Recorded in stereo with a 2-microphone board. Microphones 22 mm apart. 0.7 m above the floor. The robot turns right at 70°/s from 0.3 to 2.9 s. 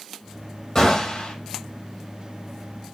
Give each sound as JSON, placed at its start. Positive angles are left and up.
{"t": 0.8, "sound": "a gunshot", "azimuth_deg": 25, "distance_m": 9.0}